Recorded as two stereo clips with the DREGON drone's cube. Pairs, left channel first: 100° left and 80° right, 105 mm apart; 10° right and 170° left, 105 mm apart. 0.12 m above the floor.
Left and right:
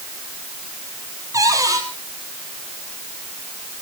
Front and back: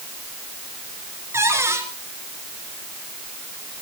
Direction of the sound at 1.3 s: 130° right.